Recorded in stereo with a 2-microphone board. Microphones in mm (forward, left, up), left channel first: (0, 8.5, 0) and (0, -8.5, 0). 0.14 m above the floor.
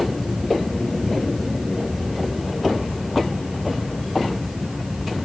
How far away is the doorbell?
No doorbell in this recording.